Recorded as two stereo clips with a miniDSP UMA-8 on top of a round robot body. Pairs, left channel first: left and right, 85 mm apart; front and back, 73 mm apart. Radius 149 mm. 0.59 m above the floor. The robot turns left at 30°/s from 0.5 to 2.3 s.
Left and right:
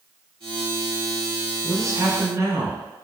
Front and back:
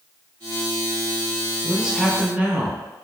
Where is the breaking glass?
No breaking glass in this recording.